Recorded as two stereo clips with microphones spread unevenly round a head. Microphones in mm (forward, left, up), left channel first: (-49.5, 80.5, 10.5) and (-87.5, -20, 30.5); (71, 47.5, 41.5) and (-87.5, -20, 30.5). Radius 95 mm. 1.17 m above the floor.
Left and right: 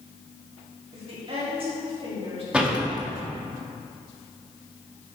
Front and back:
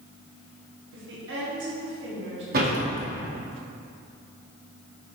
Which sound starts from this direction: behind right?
A woman speaking, at 0.9 s.